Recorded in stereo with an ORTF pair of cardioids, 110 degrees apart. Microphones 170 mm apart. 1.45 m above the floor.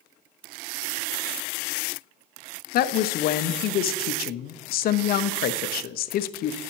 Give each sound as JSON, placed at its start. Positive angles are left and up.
{"t": 2.7, "sound": "a woman speaking", "azimuth_deg": 60, "distance_m": 0.6}